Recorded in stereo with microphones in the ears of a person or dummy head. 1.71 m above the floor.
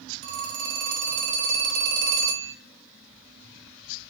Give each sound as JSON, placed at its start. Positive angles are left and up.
{"t": 0.2, "sound": "a phone ringing", "side_deg": -50, "distance_m": 0.9}